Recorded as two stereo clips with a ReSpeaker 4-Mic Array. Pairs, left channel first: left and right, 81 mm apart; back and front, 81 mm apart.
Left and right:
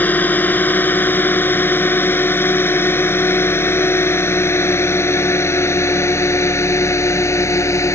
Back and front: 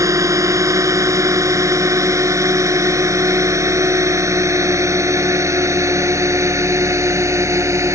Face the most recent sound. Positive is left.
turn(degrees=45)